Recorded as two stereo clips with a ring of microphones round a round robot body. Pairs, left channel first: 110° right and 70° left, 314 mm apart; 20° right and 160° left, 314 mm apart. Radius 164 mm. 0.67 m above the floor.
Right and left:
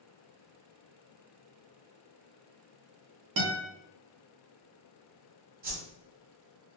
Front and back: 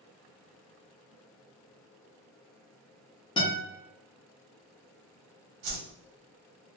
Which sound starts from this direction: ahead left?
A guitar, at 3.4 s.